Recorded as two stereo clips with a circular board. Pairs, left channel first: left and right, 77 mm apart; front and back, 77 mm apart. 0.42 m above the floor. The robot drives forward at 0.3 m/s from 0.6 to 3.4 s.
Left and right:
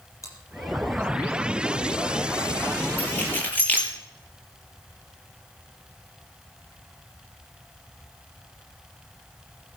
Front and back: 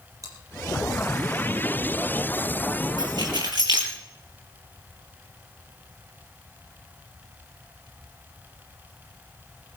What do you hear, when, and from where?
0.2 s chewing: 135° left, 5 m
3.0 s keys jangling: 155° left, 6 m